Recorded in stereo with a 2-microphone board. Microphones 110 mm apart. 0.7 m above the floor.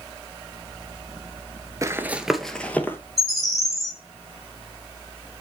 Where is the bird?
Centre (ahead or behind), 1.8 m.